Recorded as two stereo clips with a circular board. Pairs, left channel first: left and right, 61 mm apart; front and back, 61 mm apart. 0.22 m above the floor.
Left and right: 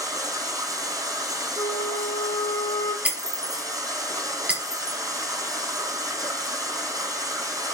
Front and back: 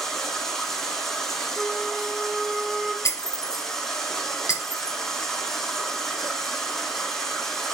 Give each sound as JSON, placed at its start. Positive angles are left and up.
{"t": 0.0, "sound": "running water", "azimuth_deg": -90, "distance_m": 6.0}
{"t": 1.6, "sound": "a flute", "azimuth_deg": 90, "distance_m": 1.0}
{"t": 3.0, "sound": "breaking glass", "azimuth_deg": -20, "distance_m": 3.0}